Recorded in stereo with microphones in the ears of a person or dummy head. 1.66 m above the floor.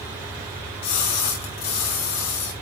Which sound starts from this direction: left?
A splash, at 0.8 s.